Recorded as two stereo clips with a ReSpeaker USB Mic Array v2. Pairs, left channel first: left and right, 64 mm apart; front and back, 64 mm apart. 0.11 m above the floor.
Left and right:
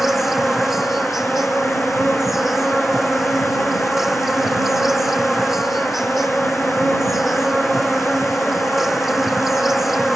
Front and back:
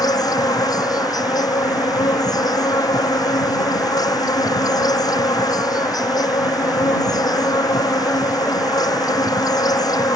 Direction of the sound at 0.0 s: 5° right.